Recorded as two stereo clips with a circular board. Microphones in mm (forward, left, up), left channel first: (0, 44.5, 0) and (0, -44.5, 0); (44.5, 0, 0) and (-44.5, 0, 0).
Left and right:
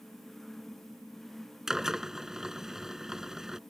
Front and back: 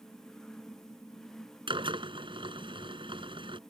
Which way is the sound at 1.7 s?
175° right.